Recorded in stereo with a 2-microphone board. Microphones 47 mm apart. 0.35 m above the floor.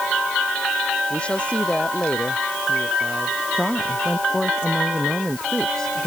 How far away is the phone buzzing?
No phone buzzing in this recording.